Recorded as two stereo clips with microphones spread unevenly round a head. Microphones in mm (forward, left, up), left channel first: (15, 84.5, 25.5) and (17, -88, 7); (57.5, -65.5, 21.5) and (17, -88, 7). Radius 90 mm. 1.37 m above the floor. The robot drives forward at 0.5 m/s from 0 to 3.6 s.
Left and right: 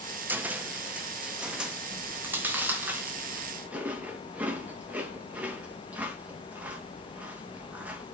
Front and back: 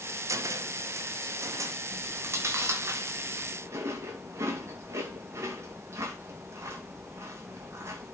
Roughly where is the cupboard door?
Behind.